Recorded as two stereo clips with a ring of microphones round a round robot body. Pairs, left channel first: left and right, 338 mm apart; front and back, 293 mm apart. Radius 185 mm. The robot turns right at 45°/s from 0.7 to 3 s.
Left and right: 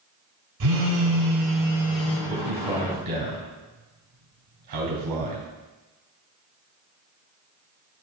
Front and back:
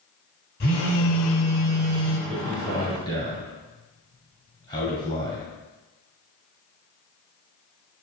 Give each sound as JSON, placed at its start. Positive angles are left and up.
{"t": 0.6, "sound": "a phone buzzing", "azimuth_deg": -60, "distance_m": 1.5}
{"t": 2.3, "sound": "a man speaking", "azimuth_deg": -105, "distance_m": 3.0}